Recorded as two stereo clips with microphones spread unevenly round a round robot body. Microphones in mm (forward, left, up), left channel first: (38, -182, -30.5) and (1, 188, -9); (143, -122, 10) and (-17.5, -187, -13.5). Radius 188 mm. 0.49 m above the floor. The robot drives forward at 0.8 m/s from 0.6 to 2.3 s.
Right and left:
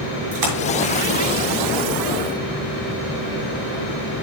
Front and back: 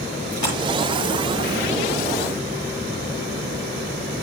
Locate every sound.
0.3 s a splash: 100° left, 6.5 m